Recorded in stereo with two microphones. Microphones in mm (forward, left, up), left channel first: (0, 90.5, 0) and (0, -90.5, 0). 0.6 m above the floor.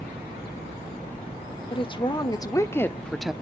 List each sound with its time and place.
1.7 s a woman speaking: 30° left (ahead or behind), 1.5 m; by 3.3 s 5° right (ahead or behind), 0.8 m